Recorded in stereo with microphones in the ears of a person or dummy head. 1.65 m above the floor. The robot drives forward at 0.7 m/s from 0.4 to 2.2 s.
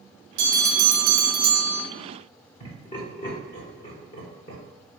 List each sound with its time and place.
0.4 s a bell: 45° right (ahead or behind), 1.1 m; by 1.9 s 70° right (ahead or behind), 0.8 m
2.6 s laughter: 30° left (ahead or behind), 1.0 m